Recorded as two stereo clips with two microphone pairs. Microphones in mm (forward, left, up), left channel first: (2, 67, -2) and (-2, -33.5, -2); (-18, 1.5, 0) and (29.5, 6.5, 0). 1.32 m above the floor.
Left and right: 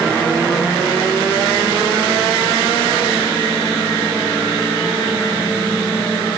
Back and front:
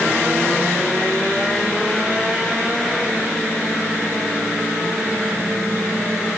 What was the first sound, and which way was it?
Only background noise.